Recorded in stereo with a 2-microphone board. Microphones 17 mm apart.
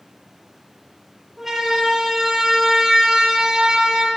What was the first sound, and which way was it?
A siren, 20° right (ahead or behind).